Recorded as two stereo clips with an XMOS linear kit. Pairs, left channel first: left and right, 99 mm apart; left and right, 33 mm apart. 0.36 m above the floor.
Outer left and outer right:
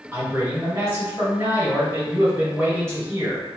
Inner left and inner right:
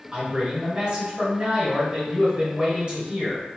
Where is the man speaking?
30° right (ahead or behind), 1.5 m.